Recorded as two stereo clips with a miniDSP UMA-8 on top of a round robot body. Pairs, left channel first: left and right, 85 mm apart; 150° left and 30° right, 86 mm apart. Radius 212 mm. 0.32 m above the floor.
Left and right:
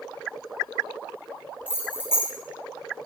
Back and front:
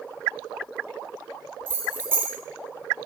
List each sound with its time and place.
1.7 s keys jangling: 30° left, 1.1 m